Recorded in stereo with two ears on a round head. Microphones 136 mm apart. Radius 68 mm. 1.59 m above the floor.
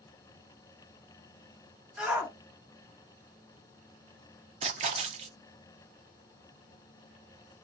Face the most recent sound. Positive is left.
turn(degrees=-45)  # may be behind; listen again after turning